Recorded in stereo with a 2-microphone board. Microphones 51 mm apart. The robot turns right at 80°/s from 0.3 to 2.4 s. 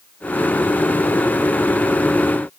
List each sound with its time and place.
Only background noise.